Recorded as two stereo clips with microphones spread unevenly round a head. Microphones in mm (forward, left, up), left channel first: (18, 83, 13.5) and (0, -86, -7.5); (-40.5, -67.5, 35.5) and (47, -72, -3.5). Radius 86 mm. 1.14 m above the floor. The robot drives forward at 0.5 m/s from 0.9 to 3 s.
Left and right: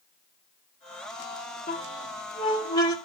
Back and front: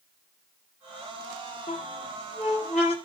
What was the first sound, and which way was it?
A squeak, 130° left.